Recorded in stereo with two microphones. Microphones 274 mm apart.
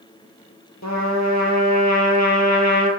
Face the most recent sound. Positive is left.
turn(degrees=70)  # may be behind; listen again after turning